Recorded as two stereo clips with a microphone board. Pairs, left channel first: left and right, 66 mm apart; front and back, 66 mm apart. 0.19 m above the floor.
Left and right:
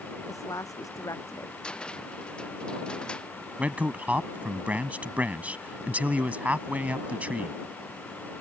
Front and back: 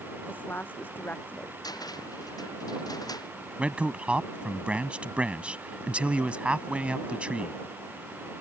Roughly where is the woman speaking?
Ahead left.